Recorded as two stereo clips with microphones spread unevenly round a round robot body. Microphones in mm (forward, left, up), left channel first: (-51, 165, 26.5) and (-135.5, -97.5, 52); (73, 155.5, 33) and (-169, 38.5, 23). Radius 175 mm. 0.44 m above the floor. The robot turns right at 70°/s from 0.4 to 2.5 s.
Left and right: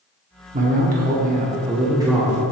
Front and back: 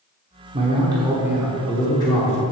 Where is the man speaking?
140° right, 1.2 m; by 2.4 s 5° right, 1.2 m.